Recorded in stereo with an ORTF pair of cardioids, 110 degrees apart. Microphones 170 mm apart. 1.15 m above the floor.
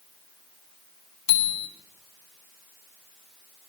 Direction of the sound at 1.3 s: 35° left.